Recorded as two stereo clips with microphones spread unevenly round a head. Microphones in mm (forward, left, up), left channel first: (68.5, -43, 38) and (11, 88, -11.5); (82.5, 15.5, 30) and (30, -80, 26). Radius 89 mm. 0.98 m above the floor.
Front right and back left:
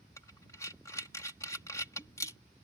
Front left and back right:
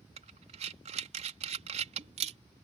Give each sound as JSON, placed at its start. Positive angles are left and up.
{"t": 0.2, "sound": "breathing", "azimuth_deg": -145}